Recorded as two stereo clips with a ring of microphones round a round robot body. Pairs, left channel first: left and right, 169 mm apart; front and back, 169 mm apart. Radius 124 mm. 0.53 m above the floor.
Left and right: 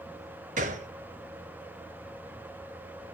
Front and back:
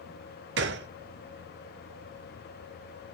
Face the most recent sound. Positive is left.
turn(degrees=-150)